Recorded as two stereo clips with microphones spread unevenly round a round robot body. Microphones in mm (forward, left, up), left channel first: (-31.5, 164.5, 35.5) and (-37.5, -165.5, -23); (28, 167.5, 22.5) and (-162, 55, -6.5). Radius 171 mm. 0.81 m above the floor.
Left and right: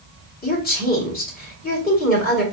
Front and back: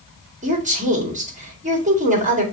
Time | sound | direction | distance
0.4 | a woman speaking | 155° left | 2 m